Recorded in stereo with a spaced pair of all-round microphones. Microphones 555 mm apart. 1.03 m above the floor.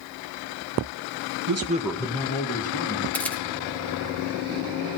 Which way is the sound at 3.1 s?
5° left (ahead or behind).